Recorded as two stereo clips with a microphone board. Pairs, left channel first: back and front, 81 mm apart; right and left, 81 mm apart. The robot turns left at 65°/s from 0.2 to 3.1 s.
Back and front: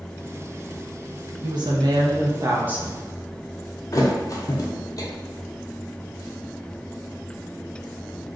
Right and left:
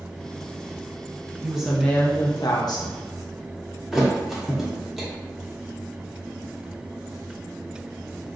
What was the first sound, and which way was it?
A woman speaking, 15° left.